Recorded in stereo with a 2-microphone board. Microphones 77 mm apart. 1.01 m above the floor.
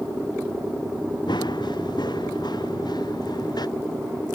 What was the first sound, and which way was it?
Running footsteps, 75° left (ahead or behind).